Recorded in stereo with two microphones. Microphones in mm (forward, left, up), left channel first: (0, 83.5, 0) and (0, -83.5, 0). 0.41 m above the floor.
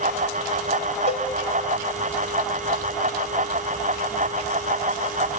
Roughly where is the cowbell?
Left.